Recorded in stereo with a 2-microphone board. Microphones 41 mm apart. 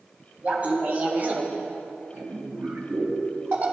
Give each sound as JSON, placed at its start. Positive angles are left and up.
{"t": 0.4, "sound": "laughter", "side_deg": -30, "distance_m": 3.0}